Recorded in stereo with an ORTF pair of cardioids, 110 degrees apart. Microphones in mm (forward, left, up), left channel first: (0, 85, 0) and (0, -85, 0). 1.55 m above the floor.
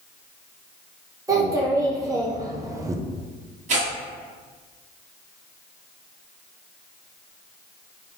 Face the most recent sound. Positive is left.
turn(degrees=-45)